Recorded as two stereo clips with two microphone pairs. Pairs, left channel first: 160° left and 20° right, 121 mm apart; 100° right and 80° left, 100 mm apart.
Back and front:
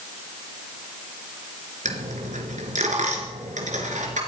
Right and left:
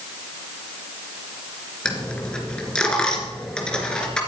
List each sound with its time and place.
1.9 s a dropped coin: 25° right, 3 m